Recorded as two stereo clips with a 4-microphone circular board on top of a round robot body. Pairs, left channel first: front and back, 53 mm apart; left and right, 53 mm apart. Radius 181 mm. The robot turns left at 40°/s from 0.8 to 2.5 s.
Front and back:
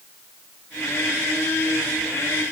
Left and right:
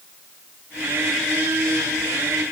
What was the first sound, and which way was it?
Only background noise.